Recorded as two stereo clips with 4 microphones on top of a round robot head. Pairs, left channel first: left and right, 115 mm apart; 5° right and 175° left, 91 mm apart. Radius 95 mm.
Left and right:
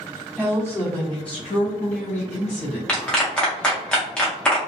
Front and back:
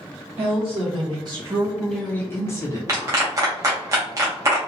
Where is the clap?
165° left, 0.6 m.